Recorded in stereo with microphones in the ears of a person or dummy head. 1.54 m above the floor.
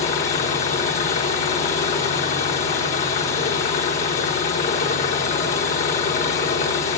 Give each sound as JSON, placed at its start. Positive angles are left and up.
{"t": 0.0, "sound": "an engine running", "side_deg": 45, "distance_m": 1.5}